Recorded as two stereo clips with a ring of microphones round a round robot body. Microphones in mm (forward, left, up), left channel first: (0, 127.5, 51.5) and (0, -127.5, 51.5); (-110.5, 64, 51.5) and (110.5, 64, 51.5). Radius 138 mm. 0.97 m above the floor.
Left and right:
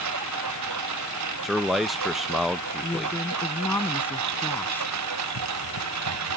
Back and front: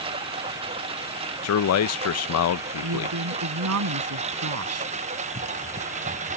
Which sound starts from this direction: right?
A lawn mower, at 0.0 s.